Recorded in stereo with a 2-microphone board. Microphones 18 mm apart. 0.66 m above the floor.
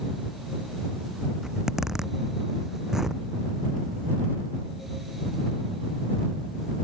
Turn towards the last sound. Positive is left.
turn(degrees=-30)  # may be behind; listen again after turning